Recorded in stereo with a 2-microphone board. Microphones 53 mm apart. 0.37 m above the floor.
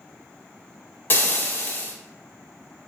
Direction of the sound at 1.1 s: 40° left (ahead or behind).